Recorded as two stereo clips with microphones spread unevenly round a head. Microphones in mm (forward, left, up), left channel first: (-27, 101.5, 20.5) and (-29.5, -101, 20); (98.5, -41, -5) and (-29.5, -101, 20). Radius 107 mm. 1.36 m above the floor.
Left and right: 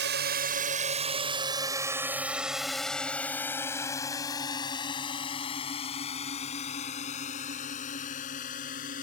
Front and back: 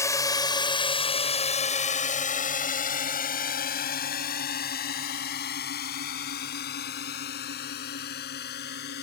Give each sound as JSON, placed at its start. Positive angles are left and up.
{"t": 0.0, "sound": "a drone", "azimuth_deg": -45}